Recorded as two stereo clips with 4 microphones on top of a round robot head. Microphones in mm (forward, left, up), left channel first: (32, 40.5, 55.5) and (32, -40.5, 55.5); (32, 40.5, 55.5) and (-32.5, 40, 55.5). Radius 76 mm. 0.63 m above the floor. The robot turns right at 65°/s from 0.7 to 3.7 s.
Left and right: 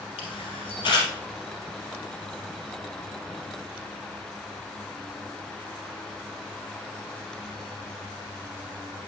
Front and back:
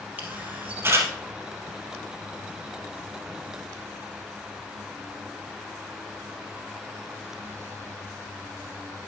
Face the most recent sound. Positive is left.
turn(degrees=-45)